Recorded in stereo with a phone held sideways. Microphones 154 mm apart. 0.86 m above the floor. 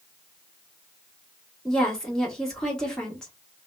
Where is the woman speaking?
5° left (ahead or behind), 1.5 m.